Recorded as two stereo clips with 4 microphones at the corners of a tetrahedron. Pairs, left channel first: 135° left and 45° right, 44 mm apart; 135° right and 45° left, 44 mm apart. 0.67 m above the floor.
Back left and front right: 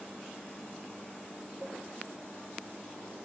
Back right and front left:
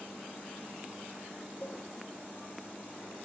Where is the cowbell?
80° right, 0.9 m.